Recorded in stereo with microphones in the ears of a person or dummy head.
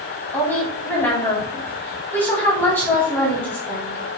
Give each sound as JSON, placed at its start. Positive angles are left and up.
{"t": 0.3, "sound": "a woman speaking", "side_deg": 10, "distance_m": 4.0}